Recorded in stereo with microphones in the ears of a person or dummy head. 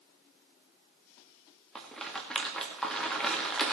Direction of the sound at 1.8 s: 5° left (ahead or behind).